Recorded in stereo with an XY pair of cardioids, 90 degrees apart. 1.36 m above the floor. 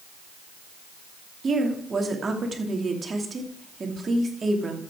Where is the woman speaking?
40° right, 2.5 m.